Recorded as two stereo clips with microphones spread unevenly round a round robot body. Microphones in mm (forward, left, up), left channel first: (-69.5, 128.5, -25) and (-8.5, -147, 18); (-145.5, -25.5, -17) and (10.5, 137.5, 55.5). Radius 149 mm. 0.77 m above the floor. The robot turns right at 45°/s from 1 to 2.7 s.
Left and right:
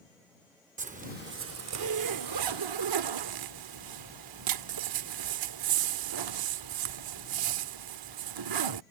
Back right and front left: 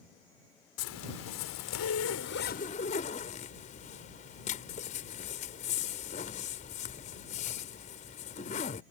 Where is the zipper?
140° right; by 8.8 s 65° right.